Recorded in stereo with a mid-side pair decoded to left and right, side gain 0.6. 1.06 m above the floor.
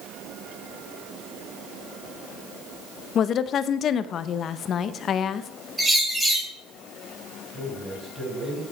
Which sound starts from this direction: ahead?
A bird, at 5.8 s.